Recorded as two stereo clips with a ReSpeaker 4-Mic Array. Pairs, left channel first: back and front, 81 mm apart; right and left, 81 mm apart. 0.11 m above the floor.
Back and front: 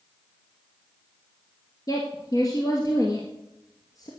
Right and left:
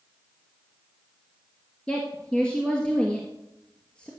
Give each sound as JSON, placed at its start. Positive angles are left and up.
{"t": 1.9, "sound": "a woman speaking", "azimuth_deg": -165, "distance_m": 2.0}